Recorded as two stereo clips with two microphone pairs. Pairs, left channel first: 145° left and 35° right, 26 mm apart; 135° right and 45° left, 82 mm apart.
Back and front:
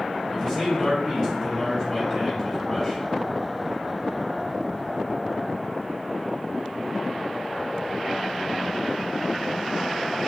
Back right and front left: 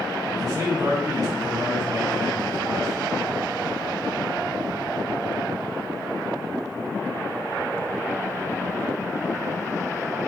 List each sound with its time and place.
0.3 s a man speaking: 80° left, 2.5 m